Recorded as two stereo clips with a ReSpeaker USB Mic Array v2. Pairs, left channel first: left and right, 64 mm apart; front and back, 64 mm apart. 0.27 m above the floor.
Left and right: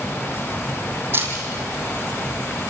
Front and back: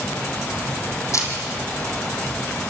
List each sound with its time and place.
1.1 s a camera shutter: 35° right, 4.5 m